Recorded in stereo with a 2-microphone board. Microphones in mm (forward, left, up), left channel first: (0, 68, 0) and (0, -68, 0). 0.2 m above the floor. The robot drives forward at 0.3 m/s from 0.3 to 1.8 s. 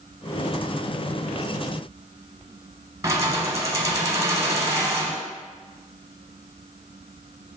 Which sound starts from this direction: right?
Keys jangling, at 3.0 s.